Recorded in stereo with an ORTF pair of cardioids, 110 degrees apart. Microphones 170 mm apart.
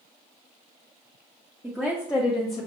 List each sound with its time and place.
1.6 s a woman speaking: 5° right, 0.8 m; by 2.7 s 40° left, 0.9 m